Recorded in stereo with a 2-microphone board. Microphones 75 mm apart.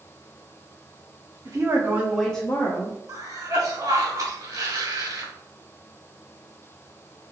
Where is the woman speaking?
55° right (ahead or behind), 1.1 m; by 3.0 s 50° left (ahead or behind), 1.1 m.